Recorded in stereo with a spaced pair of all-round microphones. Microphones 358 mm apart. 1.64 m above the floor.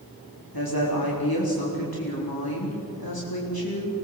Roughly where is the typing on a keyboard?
I don't hear typing on a keyboard.